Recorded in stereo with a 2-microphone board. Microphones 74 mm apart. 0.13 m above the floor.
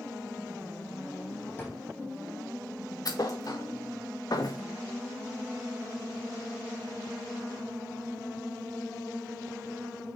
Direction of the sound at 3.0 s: 55° left (ahead or behind).